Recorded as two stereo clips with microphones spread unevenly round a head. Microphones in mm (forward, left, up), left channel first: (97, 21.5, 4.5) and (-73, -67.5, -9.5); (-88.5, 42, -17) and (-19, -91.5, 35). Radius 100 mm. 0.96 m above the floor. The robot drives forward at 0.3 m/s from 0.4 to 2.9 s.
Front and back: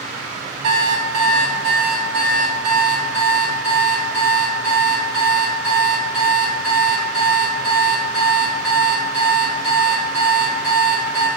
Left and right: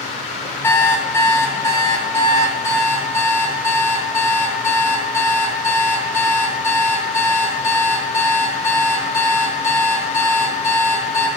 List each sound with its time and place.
0.6 s an alarm clock: 160° right, 2.5 m; by 11.3 s 165° right, 3 m